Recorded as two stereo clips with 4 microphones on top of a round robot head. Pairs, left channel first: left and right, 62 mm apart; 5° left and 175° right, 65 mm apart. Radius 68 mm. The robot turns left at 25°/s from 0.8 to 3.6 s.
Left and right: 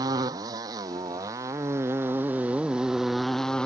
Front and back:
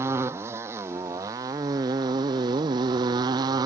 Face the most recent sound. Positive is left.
turn(degrees=170)